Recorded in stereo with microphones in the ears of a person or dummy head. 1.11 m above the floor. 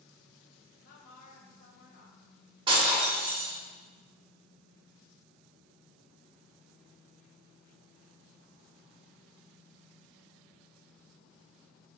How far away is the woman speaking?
About 0.8 m.